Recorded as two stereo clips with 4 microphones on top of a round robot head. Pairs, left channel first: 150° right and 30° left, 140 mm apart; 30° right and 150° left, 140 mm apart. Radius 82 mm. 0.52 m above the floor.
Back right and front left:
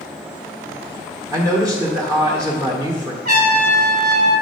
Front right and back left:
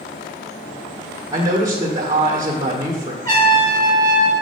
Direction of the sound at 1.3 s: 90° left.